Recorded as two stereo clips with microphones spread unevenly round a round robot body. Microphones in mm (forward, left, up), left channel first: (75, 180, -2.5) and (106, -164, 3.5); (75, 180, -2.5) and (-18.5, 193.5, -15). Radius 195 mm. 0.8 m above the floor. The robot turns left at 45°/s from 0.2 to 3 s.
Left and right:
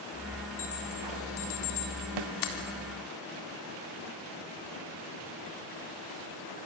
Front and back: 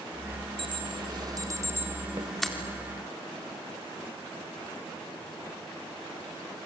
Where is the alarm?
165° left, 4 m; by 2.5 s 75° left, 4 m.